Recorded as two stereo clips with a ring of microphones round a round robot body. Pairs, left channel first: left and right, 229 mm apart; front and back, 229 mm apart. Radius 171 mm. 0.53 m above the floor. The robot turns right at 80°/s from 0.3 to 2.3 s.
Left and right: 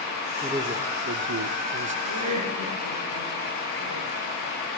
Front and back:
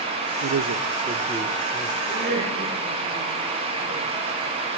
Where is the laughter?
135° right, 9 m; by 4.1 s 115° right, 9 m.